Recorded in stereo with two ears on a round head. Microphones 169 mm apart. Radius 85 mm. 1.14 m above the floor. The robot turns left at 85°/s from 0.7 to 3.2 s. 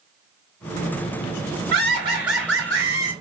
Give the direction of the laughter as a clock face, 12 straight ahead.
3 o'clock.